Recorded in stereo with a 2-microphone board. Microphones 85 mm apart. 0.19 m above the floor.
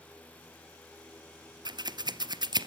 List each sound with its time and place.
1.6 s scissors: 55° right (ahead or behind), 1.0 m